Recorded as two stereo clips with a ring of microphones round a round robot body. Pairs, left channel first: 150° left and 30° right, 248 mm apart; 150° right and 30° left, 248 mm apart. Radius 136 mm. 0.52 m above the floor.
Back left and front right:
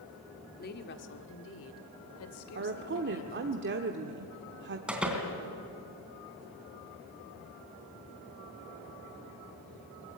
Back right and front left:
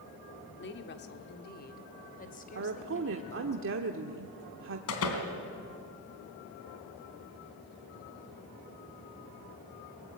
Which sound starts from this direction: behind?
A woman speaking, at 0.6 s.